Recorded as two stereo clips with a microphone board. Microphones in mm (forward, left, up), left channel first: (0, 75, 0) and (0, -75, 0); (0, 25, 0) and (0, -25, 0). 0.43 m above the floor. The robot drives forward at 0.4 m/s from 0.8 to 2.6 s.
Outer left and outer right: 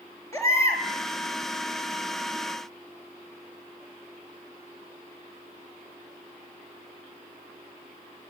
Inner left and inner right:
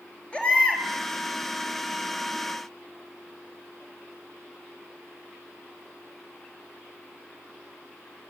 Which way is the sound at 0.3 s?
20° left (ahead or behind).